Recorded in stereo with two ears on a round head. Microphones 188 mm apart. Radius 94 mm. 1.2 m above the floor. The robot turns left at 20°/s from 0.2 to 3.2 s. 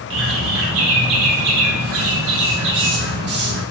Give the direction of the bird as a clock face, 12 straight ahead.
2 o'clock.